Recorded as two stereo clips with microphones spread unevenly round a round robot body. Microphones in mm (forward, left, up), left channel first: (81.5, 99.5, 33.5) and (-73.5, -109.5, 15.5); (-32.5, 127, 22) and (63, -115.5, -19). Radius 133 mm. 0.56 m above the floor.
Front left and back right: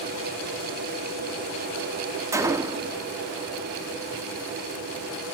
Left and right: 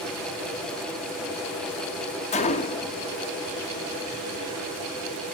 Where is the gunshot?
170° left, 0.6 m.